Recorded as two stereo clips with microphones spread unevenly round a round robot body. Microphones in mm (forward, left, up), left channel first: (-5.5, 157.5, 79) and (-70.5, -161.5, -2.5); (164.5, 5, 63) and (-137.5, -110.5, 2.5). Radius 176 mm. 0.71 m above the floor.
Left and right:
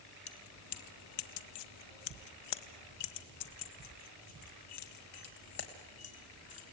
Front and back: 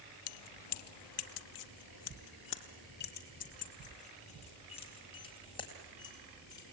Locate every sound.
0.3 s keys jangling: 5° left, 0.7 m; by 6.7 s 100° left, 3.5 m